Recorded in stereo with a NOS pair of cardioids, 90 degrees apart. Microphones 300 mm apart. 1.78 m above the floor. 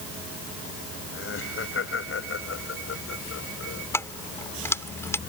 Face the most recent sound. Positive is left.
turn(degrees=10)